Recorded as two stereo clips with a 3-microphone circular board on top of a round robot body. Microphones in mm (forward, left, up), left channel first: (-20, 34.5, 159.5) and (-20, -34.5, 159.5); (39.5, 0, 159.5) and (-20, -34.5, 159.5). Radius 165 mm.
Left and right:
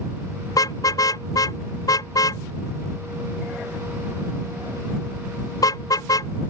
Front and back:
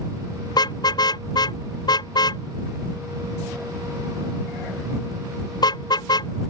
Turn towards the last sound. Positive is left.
turn(degrees=55)